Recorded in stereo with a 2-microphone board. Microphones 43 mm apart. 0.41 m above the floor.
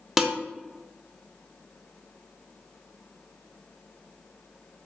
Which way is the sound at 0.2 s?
10° right (ahead or behind).